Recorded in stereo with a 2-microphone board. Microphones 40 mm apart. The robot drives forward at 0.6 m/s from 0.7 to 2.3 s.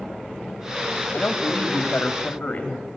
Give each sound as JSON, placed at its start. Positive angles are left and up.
{"t": 1.1, "sound": "a woman speaking", "side_deg": 40, "distance_m": 1.8}